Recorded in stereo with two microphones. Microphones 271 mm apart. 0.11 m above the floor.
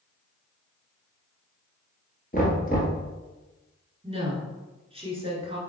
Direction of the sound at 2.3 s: 35° left (ahead or behind).